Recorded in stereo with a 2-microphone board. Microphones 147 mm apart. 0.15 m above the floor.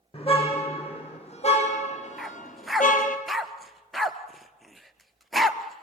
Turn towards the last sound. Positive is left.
turn(degrees=0)  # may be behind; listen again after turning